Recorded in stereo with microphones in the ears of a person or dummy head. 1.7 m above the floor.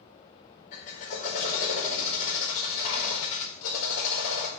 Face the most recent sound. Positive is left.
turn(degrees=45)  # may be behind; listen again after turning